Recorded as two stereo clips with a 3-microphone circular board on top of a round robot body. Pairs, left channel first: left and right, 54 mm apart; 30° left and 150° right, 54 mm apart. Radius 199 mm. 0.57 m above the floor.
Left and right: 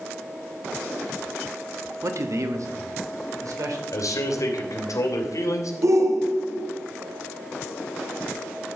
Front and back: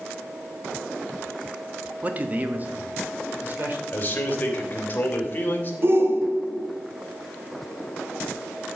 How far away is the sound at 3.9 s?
About 3 m.